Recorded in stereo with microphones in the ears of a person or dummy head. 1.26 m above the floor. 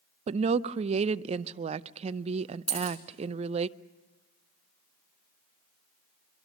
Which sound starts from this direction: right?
A woman speaking, at 0.3 s.